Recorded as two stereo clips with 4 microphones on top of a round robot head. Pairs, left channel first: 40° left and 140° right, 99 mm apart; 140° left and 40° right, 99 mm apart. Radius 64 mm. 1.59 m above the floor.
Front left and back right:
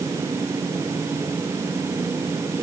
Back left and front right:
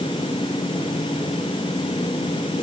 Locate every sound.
Only background noise.